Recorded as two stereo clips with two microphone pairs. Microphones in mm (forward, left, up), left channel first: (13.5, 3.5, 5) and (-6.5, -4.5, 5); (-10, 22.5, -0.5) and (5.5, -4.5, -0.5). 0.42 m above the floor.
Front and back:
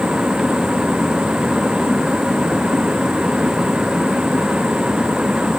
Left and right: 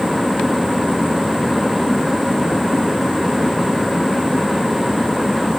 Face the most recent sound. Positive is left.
No sound to turn to.